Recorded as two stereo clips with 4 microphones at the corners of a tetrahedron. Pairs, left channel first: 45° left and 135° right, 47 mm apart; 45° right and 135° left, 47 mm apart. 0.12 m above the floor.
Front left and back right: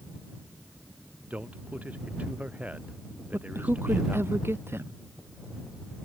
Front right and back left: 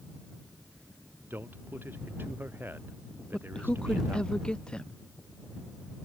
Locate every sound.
1.3 s a man speaking: 170° left
3.3 s a man speaking: 115° right